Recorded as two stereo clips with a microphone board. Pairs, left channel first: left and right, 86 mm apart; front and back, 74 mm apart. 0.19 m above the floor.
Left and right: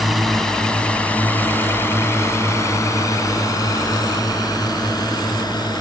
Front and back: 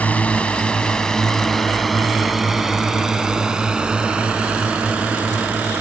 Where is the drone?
Straight ahead; by 5.8 s 110° left.